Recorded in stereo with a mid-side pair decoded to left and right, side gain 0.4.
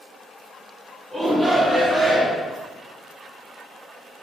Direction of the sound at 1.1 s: 25° right.